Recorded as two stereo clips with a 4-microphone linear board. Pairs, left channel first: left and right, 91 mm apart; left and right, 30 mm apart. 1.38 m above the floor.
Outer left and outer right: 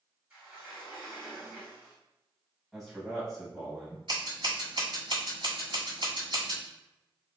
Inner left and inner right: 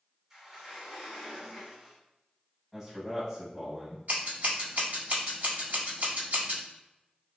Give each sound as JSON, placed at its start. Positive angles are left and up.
{"t": 0.3, "sound": "a sliding door", "side_deg": -15, "distance_m": 1.9}
{"t": 2.7, "sound": "a man speaking", "side_deg": -10, "distance_m": 1.6}
{"t": 4.1, "sound": "scissors", "side_deg": -70, "distance_m": 1.8}